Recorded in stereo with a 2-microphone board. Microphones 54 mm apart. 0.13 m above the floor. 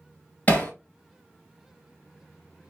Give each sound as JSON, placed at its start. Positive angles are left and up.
{"t": 0.5, "sound": "hammering", "side_deg": 30, "distance_m": 2.0}